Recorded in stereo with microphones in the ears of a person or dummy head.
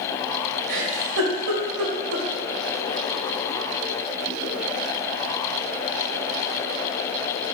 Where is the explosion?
No explosion in this recording.